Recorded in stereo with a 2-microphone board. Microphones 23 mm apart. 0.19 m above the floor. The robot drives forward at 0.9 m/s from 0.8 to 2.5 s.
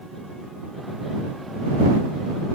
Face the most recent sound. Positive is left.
No sound to turn to.